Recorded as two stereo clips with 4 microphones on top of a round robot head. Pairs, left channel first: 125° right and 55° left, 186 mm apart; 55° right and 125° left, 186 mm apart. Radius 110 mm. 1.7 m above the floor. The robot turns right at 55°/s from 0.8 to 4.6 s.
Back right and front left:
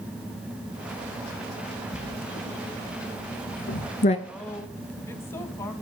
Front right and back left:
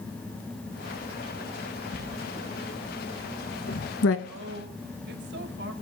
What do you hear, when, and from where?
1.9 s writing: 170° left, 2.0 m; by 4.2 s 65° right, 2.0 m
4.3 s a woman speaking: 140° left, 2 m; by 5.7 s 160° left, 2 m